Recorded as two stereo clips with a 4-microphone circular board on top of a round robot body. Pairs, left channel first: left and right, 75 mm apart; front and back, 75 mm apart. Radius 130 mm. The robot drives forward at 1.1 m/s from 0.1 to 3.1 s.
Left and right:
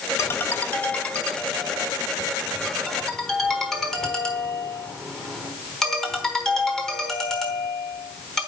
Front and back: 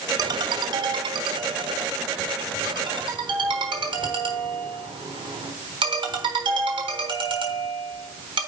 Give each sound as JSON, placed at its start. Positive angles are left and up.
{"t": 0.2, "sound": "a ringtone", "azimuth_deg": 145, "distance_m": 0.7}